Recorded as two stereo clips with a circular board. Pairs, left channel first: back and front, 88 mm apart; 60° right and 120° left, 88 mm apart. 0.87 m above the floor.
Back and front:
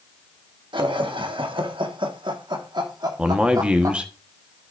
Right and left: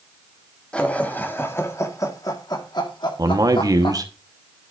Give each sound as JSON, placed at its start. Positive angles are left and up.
{"t": 0.7, "sound": "laughter", "azimuth_deg": 15, "distance_m": 1.6}
{"t": 3.2, "sound": "a man speaking", "azimuth_deg": 75, "distance_m": 1.1}